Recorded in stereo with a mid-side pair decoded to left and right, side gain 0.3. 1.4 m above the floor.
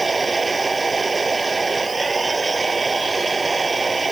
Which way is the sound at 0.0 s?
35° right.